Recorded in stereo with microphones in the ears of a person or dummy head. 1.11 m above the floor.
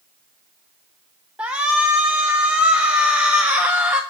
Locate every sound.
1.4 s a shout: 5° right (ahead or behind), 0.7 m